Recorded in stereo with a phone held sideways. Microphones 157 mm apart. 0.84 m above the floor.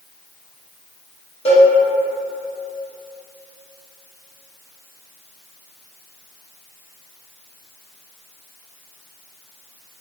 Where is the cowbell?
40° left (ahead or behind), 1.0 m.